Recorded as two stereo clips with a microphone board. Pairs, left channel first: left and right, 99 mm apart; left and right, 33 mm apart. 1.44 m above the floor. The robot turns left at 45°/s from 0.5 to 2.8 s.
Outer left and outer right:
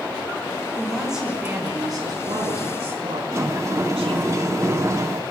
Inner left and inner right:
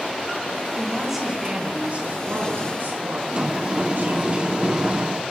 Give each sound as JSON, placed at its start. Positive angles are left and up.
{"t": 0.8, "sound": "a woman speaking", "azimuth_deg": 10, "distance_m": 5.0}
{"t": 3.3, "sound": "a sliding door", "side_deg": -30, "distance_m": 1.0}